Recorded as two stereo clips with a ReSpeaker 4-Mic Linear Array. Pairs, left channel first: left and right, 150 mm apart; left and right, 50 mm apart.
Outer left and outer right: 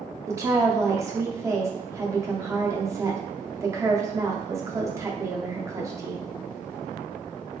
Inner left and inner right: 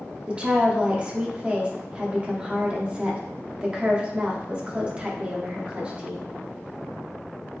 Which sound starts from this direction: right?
A woman speaking, at 0.3 s.